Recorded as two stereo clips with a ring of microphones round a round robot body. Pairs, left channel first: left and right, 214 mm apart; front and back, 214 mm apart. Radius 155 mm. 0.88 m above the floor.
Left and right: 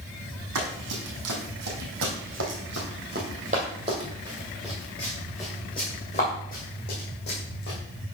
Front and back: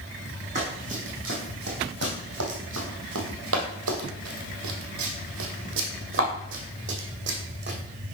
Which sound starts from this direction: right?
Running footsteps, at 0.6 s.